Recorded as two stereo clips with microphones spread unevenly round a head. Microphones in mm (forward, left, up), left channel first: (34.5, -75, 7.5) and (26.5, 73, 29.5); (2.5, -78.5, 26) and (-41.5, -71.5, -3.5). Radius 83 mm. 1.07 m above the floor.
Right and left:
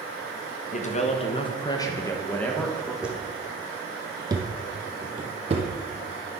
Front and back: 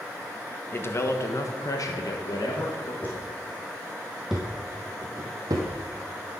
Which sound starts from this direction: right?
A man speaking, at 0.7 s.